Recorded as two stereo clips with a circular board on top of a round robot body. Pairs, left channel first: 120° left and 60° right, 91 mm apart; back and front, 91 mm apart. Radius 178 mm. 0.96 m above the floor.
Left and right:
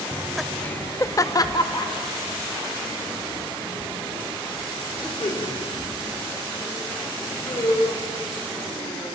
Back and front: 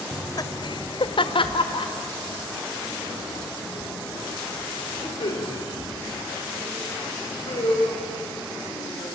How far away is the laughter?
About 0.9 m.